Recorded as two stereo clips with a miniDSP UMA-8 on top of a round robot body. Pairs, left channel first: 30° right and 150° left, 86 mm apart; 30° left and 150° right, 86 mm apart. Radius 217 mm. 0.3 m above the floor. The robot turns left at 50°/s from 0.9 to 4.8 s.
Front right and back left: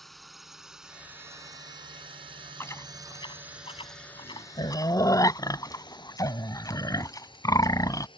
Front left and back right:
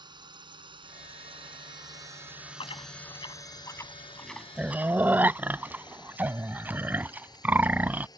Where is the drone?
120° right; by 8.2 s 10° right.